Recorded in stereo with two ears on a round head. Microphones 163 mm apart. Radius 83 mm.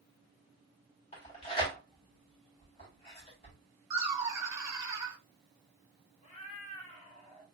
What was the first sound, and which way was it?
Tearing paper, 30° left (ahead or behind).